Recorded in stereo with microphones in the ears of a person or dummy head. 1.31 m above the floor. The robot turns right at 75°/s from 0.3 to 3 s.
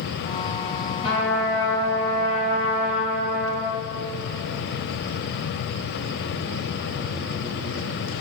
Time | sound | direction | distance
1.0 | a trumpet | 40° left | 5 m